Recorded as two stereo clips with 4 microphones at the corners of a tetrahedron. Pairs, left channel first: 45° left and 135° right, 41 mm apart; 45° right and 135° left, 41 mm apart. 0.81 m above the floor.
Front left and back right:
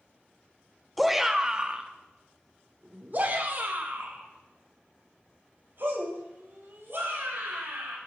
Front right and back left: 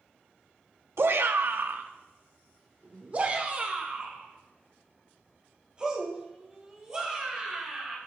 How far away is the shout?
About 0.8 m.